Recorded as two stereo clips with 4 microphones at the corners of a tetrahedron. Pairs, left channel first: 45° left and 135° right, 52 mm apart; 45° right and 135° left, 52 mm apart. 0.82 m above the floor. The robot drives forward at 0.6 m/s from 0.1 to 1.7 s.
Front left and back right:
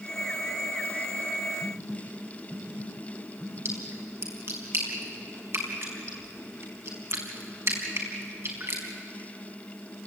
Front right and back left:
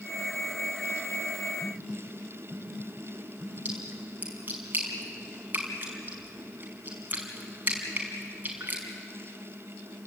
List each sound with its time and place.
1.6 s a phone buzzing: 155° right, 6 m
3.6 s a splash: 170° right, 4.5 m